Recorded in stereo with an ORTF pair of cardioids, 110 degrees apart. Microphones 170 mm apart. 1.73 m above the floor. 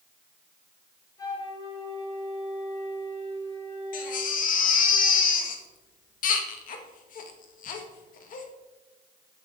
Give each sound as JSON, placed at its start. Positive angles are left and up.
{"t": 1.2, "sound": "a flute", "azimuth_deg": 20, "distance_m": 5.5}
{"t": 3.9, "sound": "a baby crying", "azimuth_deg": 55, "distance_m": 2.0}